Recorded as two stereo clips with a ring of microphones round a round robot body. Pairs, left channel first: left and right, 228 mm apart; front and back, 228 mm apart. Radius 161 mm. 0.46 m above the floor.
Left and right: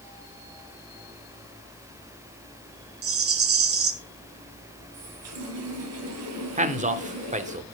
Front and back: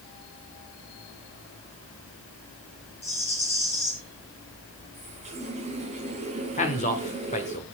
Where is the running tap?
110° right, 2.0 m.